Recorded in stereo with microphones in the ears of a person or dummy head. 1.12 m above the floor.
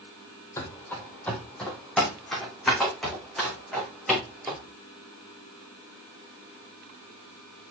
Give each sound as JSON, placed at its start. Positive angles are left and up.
{"t": 0.6, "sound": "running footsteps", "side_deg": 20, "distance_m": 2.0}